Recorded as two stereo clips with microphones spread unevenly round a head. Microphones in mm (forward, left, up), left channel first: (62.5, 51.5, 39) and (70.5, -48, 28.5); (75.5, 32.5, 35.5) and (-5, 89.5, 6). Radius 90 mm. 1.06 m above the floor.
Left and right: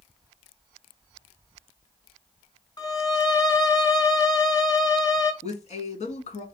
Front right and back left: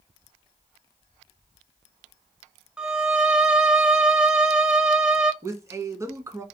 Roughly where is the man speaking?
Left.